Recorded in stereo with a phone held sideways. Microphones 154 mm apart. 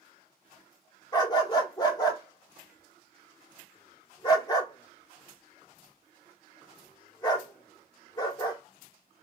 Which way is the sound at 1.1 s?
25° left (ahead or behind).